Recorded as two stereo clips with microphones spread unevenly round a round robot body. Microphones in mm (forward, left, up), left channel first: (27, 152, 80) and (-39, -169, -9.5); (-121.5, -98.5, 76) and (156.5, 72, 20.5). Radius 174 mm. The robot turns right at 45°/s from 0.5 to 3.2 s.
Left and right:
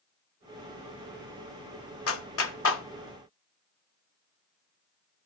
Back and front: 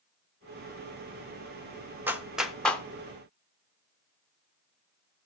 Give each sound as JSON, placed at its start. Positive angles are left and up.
{"t": 2.1, "sound": "a clap", "azimuth_deg": 75, "distance_m": 0.7}